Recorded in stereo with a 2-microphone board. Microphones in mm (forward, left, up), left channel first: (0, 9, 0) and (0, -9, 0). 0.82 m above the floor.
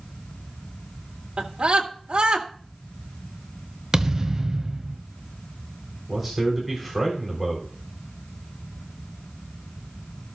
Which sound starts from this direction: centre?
A man speaking, at 6.1 s.